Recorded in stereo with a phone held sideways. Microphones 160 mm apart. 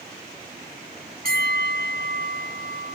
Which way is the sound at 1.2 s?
65° right (ahead or behind).